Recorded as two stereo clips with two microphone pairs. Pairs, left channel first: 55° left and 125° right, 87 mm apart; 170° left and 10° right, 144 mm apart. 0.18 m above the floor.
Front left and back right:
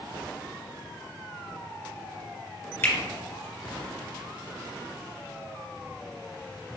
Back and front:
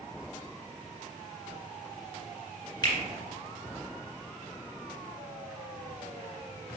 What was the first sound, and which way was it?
A finger snap, 115° left.